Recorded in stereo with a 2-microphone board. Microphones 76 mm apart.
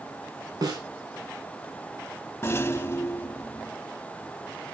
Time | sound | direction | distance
0.6 | a snare drum | 55° right (ahead or behind) | 4.5 m
2.4 | a rattle | 30° left (ahead or behind) | 0.5 m